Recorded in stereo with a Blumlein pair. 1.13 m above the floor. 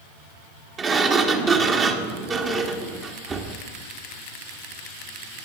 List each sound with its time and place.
0.8 s a sliding door: 25° right, 1.3 m